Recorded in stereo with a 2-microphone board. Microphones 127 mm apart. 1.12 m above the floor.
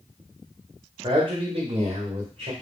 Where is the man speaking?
35° right (ahead or behind), 0.8 m; by 2.5 s 50° right (ahead or behind), 1.1 m.